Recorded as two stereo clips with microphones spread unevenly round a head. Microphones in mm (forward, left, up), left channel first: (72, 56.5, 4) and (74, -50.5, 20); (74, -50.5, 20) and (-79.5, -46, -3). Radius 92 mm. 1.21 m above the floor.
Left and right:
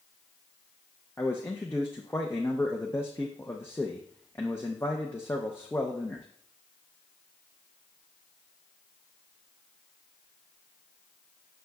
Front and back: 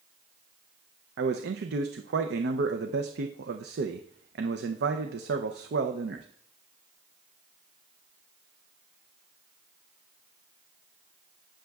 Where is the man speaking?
170° left, 0.6 m.